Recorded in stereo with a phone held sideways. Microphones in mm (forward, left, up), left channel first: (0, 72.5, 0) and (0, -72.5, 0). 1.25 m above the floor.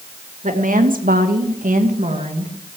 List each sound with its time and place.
0.4 s a woman speaking: 60° right (ahead or behind), 2 m; by 2.7 s 40° right (ahead or behind), 2 m